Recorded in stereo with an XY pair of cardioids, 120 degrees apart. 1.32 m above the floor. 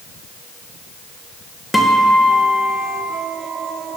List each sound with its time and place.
1.7 s a guitar: 10° left, 0.8 m